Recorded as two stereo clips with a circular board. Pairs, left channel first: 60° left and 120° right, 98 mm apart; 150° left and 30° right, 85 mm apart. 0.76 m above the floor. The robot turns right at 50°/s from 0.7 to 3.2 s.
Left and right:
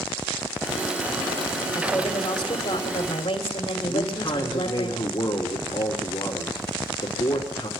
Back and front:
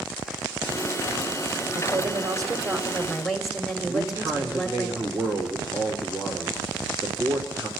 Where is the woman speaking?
15° right, 3 m; by 4.9 s 60° left, 3 m.